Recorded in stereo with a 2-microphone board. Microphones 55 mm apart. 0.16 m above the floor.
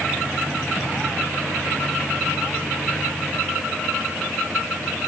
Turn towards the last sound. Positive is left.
No sound to turn to.